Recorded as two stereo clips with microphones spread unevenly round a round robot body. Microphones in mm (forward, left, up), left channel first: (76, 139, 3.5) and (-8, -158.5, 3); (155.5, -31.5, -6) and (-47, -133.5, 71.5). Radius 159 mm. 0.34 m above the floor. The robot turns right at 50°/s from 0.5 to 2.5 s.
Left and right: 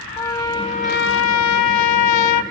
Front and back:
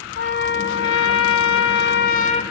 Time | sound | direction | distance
0.2 | a trumpet | 5° right | 1.6 m